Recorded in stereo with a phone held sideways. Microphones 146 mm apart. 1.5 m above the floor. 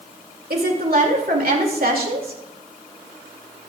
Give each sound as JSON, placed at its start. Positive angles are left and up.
{"t": 0.5, "sound": "a woman speaking", "side_deg": -80, "distance_m": 2.5}